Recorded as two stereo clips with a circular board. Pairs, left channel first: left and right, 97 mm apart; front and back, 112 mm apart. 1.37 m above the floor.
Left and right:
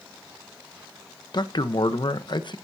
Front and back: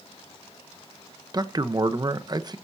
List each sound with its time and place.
1.3 s a man speaking: 125° left, 1.1 m